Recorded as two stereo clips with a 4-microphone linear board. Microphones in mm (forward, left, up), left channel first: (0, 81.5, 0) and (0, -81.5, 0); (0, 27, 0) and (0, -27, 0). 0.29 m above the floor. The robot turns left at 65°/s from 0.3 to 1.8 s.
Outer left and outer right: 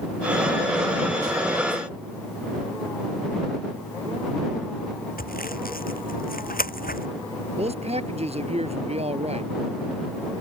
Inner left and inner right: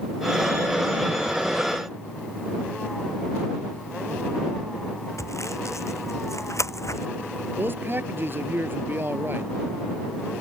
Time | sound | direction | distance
5.2 | sawing | 65° left (ahead or behind) | ?
7.6 | a man speaking | 40° right (ahead or behind) | ?